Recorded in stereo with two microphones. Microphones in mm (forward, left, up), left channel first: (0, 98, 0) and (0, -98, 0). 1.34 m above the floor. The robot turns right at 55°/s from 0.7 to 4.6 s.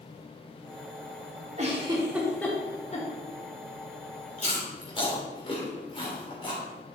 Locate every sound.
1.6 s a giggle: 40° right (ahead or behind), 2.5 m; by 3.1 s 45° left (ahead or behind), 2.5 m
4.4 s chewing: 40° left (ahead or behind), 3 m; by 6.6 s 25° left (ahead or behind), 3 m